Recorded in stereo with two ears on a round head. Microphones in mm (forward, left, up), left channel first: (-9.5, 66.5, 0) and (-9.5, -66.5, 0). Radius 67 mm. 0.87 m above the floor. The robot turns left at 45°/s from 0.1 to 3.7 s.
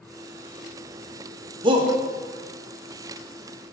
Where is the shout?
35° right (ahead or behind), 0.9 m; by 1.9 s 25° right (ahead or behind), 0.9 m.